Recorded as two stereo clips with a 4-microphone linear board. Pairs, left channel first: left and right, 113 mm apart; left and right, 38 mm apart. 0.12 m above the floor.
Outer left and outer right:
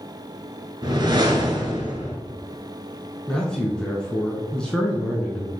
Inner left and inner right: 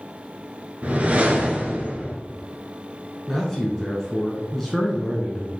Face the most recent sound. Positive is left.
turn(degrees=10)  # may be behind; listen again after turning